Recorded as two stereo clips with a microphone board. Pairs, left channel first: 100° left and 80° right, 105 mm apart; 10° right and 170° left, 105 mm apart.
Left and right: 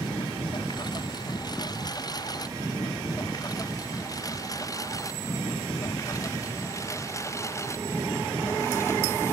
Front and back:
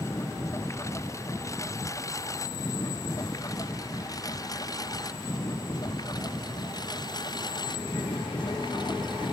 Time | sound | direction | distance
0.0 | a lawn mower | 50° left | ?